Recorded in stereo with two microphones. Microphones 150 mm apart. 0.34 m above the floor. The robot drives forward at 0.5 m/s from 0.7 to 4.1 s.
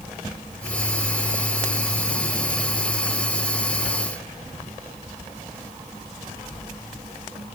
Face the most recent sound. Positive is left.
No sound to turn to.